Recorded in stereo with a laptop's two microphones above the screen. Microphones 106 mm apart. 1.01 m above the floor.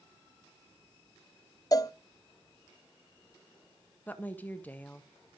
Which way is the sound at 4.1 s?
15° left (ahead or behind).